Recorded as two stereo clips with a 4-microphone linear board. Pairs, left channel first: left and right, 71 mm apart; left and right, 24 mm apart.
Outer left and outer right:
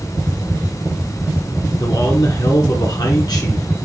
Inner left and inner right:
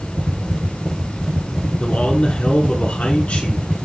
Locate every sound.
1.8 s a man speaking: 70° left (ahead or behind), 3 m